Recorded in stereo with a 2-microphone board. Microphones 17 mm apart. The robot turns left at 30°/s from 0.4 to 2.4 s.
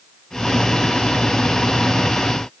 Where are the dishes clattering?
I don't hear dishes clattering.